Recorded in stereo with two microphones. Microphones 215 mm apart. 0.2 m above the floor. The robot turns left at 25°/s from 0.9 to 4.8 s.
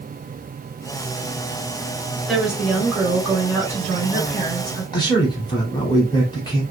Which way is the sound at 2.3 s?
Centre (ahead or behind).